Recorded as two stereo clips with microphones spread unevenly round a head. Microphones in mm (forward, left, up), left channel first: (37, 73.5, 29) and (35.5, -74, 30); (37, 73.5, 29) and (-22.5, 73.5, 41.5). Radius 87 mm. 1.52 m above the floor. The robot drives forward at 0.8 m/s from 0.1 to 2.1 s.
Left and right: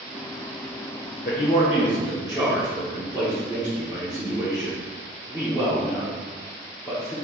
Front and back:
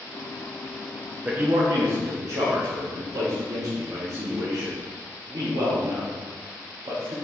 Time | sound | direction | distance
1.2 | a man speaking | 120° left | 0.5 m